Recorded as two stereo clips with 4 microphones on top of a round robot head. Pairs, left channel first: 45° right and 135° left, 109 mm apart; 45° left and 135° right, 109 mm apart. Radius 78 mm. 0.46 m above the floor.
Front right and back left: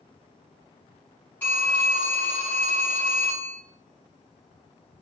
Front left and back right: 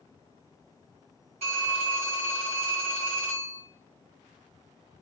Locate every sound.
1.4 s a phone ringing: 115° right, 2.0 m